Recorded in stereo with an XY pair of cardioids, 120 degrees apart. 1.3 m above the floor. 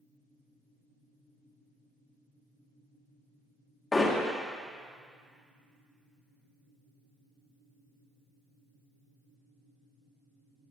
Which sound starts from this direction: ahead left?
Hammering, at 3.9 s.